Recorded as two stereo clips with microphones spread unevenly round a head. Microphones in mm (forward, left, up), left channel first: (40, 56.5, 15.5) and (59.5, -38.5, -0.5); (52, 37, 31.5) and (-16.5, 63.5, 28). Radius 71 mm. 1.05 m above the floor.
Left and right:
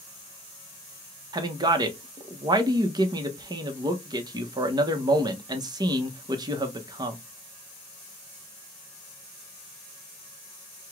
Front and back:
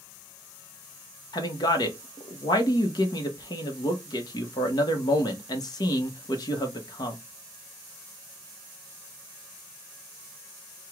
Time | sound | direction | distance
1.3 | a man speaking | 50° right | 1.1 m